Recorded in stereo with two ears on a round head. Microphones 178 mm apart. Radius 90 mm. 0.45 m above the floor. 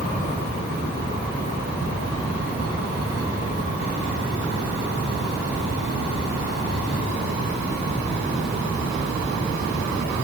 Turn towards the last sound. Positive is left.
No sound to turn to.